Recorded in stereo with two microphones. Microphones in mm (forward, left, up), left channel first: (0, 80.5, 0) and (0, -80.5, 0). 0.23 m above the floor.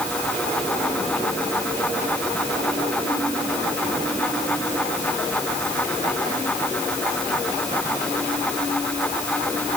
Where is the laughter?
I don't hear laughter.